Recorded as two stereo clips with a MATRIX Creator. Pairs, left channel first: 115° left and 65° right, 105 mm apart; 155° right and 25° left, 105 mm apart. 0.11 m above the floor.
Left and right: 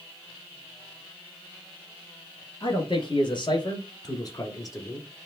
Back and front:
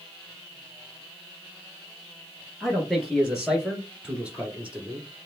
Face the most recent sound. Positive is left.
turn(degrees=80)